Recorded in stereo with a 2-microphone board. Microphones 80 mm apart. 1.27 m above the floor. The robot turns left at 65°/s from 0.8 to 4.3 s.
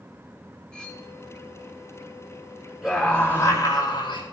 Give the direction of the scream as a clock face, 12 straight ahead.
6 o'clock.